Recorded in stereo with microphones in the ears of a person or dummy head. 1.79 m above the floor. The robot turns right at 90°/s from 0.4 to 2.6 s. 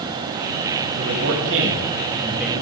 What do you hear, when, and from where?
1.0 s a man speaking: 130° right, 4 m; by 2.6 s 15° left, 4 m